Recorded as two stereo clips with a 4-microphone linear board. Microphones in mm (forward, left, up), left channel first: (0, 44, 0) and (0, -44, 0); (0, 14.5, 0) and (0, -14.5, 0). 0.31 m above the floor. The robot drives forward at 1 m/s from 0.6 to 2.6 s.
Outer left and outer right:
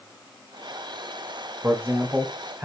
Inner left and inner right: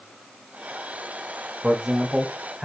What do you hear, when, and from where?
1.6 s a man speaking: 25° right (ahead or behind), 0.9 m; by 2.7 s 15° right (ahead or behind), 1.4 m